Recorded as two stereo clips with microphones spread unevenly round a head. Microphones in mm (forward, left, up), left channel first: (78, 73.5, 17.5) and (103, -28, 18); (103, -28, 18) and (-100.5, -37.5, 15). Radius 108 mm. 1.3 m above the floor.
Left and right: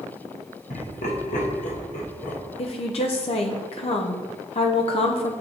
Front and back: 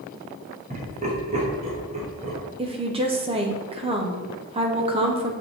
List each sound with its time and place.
0.7 s laughter: 120° left, 1.4 m
2.6 s a woman speaking: 120° left, 0.8 m